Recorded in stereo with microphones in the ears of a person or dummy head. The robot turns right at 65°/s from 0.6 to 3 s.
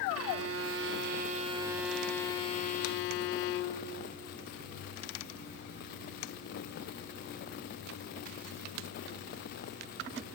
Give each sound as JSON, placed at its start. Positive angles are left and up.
{"t": 0.1, "sound": "a violin", "azimuth_deg": -90, "distance_m": 0.7}